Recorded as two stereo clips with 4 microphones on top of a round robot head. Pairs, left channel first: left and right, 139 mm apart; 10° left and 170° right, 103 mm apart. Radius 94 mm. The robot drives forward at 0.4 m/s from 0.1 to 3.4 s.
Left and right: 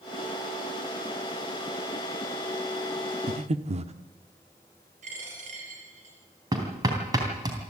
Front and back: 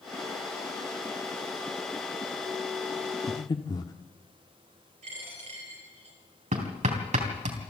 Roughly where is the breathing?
Ahead right.